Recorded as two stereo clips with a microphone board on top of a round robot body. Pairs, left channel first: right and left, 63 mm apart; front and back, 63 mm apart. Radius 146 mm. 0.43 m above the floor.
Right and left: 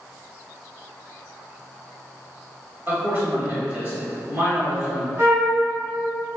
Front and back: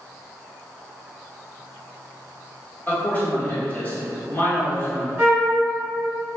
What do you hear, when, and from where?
2.9 s a man speaking: 50° left, 1.8 m
5.2 s a flute: 125° left, 1.4 m